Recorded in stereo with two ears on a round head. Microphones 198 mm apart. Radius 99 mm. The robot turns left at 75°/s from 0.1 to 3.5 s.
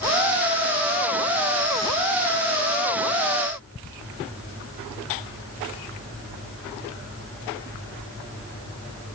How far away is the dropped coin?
I don't hear a dropped coin.